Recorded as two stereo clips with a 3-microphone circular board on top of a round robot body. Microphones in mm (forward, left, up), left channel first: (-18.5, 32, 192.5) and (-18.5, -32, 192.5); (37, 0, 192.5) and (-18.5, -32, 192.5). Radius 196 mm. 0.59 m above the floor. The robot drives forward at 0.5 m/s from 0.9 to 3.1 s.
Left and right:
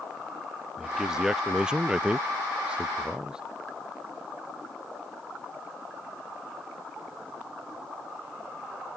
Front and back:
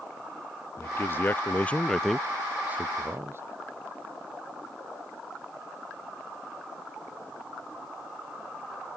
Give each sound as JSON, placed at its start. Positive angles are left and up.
{"t": 0.8, "sound": "a man speaking", "azimuth_deg": -10}